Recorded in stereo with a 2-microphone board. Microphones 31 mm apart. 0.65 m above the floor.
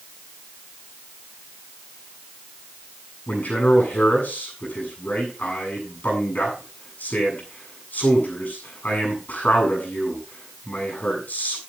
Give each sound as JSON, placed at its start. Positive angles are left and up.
{"t": 3.3, "sound": "a man speaking", "side_deg": 55, "distance_m": 7.5}